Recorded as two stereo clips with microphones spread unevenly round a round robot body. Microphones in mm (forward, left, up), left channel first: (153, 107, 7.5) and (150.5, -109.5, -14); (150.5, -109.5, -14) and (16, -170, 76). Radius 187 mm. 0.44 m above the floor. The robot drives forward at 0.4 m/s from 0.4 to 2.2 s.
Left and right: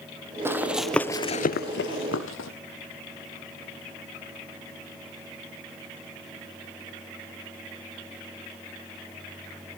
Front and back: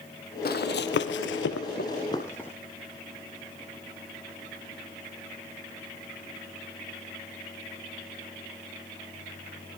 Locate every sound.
0.5 s running footsteps: 10° right, 1.2 m; by 2.5 s 120° left, 1.1 m